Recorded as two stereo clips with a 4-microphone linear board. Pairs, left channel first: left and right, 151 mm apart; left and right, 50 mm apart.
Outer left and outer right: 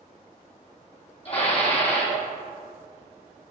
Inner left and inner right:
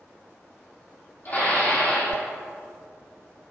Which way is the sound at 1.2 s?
40° left (ahead or behind).